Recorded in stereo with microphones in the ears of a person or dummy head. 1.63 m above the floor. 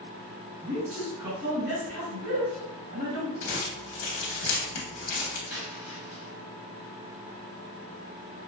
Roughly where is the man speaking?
Right.